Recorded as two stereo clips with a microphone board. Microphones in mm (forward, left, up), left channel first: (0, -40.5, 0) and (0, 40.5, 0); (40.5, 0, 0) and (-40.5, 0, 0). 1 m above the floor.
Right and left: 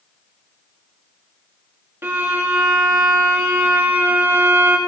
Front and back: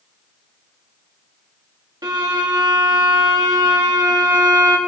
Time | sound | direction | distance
2.0 | a violin | 150° left | 1.8 m